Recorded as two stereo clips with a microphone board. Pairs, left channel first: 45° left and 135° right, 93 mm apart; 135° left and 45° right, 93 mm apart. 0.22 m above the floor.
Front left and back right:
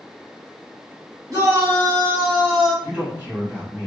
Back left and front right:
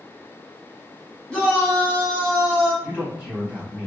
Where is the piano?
I don't hear a piano.